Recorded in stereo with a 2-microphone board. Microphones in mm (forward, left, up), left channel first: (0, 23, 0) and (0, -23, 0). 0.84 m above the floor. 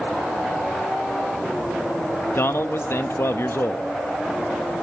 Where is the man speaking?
60° left (ahead or behind), 0.6 m.